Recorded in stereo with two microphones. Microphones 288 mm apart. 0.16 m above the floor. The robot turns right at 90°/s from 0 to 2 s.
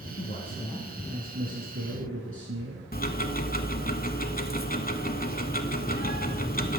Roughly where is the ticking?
Left.